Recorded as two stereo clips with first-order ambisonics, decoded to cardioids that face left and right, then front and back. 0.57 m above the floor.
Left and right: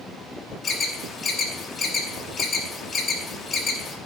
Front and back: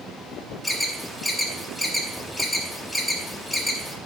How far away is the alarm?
About 1.0 m.